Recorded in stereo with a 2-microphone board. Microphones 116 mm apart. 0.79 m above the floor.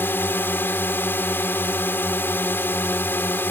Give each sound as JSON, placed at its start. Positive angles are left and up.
{"t": 0.0, "sound": "a drone", "side_deg": 15}